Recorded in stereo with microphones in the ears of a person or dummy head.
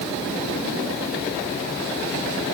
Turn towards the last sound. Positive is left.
No sound to turn to.